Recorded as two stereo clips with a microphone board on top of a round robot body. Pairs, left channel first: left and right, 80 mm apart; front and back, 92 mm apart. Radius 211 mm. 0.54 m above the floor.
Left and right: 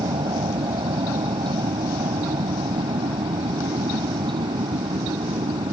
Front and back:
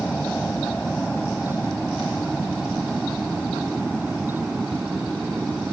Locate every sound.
0.0 s an aircraft: 80° right; by 5.7 s 95° right